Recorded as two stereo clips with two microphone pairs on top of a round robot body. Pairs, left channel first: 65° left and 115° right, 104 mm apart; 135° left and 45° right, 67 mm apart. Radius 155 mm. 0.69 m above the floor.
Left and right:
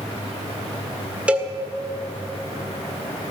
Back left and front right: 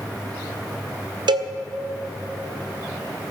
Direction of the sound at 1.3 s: 45° right.